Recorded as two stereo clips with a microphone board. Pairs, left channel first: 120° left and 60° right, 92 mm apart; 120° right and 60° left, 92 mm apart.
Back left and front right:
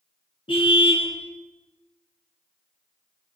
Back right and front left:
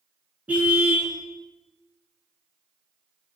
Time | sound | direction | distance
0.5 | a car horn | 135° left | 4.5 m